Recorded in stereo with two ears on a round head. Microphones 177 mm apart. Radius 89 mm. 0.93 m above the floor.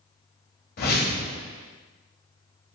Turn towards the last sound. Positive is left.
turn(degrees=50)  # may be behind; listen again after turning